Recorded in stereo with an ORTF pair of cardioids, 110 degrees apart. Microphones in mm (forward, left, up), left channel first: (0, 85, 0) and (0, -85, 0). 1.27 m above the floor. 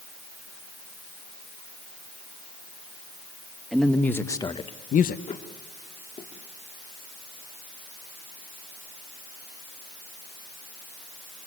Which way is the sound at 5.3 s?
40° left.